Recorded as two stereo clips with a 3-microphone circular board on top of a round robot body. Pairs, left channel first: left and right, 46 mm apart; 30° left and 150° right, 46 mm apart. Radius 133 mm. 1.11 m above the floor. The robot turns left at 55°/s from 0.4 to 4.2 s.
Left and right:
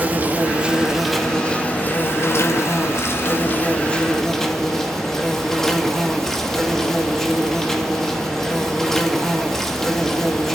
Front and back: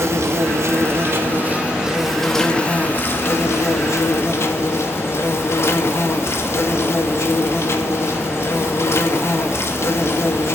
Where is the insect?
140° right, 2 m; by 10.6 s 10° left, 2 m.